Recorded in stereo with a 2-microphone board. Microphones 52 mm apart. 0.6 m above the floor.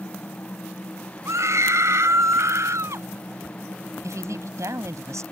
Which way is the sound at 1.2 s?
70° right (ahead or behind).